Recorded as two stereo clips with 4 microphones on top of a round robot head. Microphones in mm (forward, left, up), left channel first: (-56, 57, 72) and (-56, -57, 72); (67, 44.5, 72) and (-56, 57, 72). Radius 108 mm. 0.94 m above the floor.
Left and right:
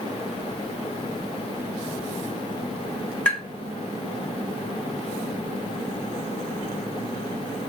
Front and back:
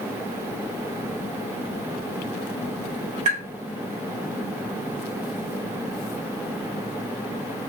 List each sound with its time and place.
3.2 s tapping: 165° left, 1.6 m